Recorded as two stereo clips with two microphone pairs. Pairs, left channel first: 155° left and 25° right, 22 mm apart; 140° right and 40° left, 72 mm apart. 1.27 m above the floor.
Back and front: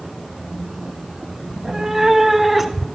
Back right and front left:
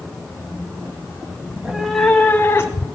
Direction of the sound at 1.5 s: 10° right.